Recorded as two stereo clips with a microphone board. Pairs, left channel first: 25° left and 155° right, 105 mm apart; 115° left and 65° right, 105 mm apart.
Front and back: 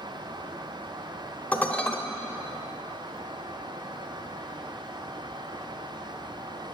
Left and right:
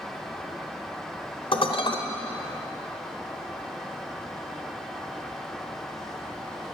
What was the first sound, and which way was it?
Dishes clattering, 100° left.